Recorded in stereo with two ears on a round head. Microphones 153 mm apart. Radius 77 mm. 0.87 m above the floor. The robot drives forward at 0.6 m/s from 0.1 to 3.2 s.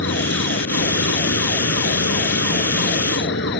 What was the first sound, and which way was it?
An insect, 80° left.